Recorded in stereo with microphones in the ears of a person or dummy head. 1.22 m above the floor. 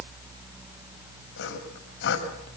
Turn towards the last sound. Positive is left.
turn(degrees=65)  # may be behind; listen again after turning